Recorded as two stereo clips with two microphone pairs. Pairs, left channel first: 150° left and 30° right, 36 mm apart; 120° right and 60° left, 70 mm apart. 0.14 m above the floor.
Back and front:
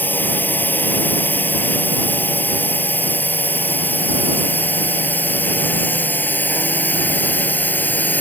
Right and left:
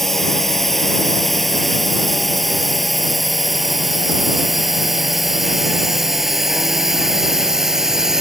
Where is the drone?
155° left; by 8.2 s 140° left.